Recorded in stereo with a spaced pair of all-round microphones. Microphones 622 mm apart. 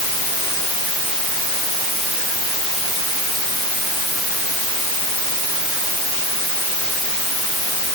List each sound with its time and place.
Only background noise.